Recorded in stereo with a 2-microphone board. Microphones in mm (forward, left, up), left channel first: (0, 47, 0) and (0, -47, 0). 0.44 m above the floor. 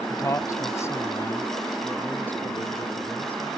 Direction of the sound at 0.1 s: 40° left (ahead or behind).